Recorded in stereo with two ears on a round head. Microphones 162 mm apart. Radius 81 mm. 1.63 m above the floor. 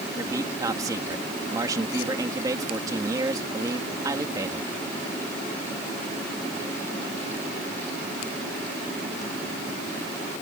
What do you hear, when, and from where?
0.1 s a man speaking: 20° right (ahead or behind)